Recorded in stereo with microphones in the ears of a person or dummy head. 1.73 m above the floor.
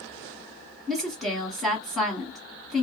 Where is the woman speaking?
5° left (ahead or behind), 1.0 m.